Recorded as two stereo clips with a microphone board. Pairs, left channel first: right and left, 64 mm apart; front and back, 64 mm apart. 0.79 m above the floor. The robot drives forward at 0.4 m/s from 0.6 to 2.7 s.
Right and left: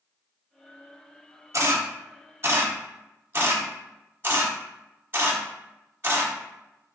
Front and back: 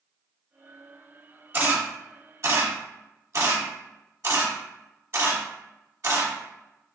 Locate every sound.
1.5 s a camera shutter: 125° left, 0.9 m; by 6.3 s 145° left, 1.3 m